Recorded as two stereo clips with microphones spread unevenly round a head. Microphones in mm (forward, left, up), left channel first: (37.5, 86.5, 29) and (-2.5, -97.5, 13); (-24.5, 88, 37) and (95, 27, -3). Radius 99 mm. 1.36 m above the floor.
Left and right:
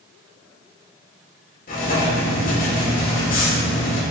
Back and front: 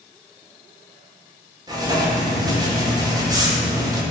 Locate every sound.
1.7 s writing: 40° left, 2 m